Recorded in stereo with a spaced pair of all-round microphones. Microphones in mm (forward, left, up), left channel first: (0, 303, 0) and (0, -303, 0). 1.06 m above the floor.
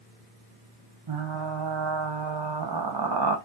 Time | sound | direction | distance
1.1 | frying | 45° right (ahead or behind) | 0.6 m